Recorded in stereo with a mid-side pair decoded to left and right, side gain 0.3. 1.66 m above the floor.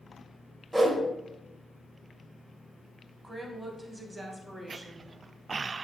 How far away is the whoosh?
About 0.6 m.